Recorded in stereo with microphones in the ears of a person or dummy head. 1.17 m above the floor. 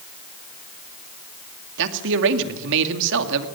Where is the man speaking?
65° right (ahead or behind), 2 m.